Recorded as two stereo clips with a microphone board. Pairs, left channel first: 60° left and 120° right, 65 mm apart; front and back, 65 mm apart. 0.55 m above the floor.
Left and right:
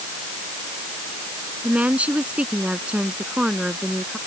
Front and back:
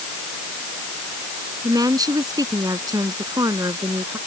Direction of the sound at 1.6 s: 170° left.